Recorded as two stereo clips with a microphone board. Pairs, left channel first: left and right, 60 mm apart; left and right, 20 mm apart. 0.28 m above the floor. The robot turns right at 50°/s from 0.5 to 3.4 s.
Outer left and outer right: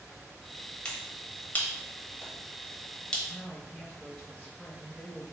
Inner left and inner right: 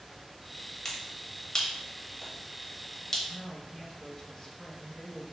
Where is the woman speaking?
15° left (ahead or behind), 0.9 m.